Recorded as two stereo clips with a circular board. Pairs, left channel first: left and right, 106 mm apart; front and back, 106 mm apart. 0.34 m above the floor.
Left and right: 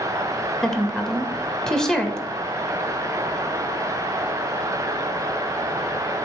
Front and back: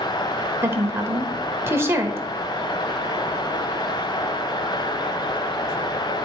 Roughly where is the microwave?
No microwave in this recording.